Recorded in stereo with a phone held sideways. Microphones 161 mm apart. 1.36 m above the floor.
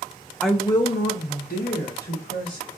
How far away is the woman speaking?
About 0.8 m.